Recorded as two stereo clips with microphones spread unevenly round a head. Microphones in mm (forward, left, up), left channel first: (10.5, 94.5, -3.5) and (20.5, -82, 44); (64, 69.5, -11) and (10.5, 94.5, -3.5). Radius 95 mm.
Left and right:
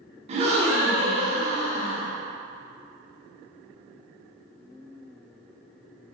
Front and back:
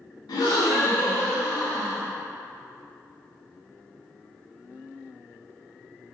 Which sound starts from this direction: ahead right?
A gasp, at 0.3 s.